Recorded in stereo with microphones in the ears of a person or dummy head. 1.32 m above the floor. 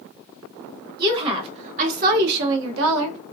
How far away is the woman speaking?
About 1.2 m.